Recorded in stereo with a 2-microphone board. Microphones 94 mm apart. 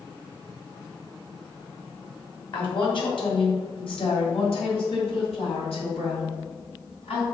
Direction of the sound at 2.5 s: 55° left (ahead or behind).